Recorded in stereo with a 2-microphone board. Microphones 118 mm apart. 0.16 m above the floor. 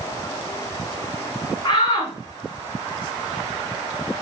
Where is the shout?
35° left (ahead or behind), 1.7 m.